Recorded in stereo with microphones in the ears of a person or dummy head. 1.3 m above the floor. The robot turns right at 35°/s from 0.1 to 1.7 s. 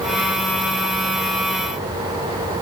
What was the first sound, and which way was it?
Only background noise.